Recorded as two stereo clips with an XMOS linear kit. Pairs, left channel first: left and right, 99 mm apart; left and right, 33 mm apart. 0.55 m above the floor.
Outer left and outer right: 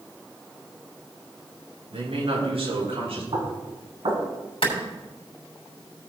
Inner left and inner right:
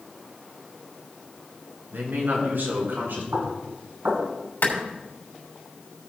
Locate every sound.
1.9 s a man speaking: 75° right (ahead or behind), 5 m; by 3.2 s 80° right, 6.5 m
3.3 s knocking: 75° right (ahead or behind), 3 m
4.6 s a clap: 70° left (ahead or behind), 3 m